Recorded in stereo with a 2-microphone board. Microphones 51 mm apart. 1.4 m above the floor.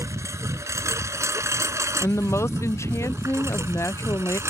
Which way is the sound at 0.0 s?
75° right (ahead or behind).